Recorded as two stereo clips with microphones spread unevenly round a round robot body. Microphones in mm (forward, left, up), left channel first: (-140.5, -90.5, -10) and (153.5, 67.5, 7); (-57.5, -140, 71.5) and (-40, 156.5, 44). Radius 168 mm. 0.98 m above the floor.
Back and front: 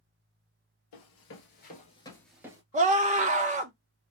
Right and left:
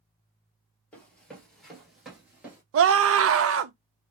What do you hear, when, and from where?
0.9 s running footsteps: 170° right, 1.3 m; by 2.6 s 5° right, 0.9 m
2.7 s a scream: 95° left, 0.7 m